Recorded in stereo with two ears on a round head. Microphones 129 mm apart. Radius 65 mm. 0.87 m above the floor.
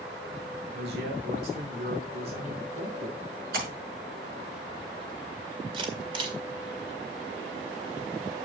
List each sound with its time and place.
0.7 s a man speaking: 75° right (ahead or behind), 2 m
3.5 s a splash: 75° right (ahead or behind), 6.5 m
5.7 s a camera shutter: 35° right (ahead or behind), 1.9 m